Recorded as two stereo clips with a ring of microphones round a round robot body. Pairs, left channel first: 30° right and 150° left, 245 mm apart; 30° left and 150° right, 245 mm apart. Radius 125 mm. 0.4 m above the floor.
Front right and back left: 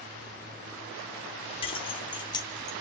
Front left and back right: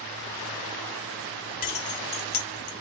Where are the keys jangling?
20° left, 0.7 m; by 2.7 s 45° left, 1.3 m.